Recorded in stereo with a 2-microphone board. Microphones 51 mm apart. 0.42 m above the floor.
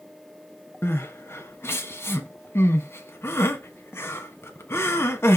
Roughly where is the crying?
Left.